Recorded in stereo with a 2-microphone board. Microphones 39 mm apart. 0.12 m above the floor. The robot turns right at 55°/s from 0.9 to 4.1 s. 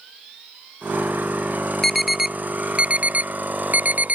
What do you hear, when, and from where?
1.8 s an alarm: 10° left (ahead or behind); by 4.2 s 45° right (ahead or behind)